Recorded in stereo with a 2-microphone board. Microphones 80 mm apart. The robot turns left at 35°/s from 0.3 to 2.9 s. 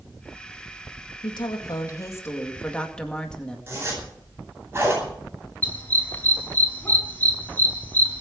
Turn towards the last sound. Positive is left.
turn(degrees=25)  # may be behind; listen again after turning